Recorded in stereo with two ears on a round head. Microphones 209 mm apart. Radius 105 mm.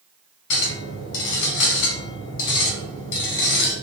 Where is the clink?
55° left (ahead or behind), 1.8 m.